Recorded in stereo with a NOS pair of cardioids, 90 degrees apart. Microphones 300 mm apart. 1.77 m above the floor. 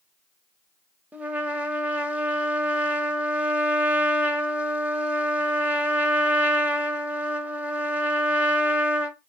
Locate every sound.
1.1 s a trumpet: 5° right, 0.5 m